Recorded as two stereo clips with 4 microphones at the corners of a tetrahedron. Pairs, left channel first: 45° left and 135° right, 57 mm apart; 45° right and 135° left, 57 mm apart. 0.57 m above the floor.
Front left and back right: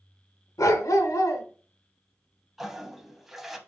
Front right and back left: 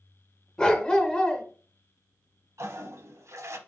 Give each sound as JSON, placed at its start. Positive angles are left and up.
{"t": 0.6, "sound": "a dog barking", "azimuth_deg": 30, "distance_m": 0.7}
{"t": 2.6, "sound": "a toilet flushing", "azimuth_deg": 140, "distance_m": 0.6}